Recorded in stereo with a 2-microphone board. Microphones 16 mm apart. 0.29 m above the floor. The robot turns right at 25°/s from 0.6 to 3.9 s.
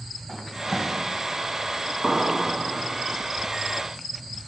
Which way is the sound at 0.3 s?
20° left (ahead or behind).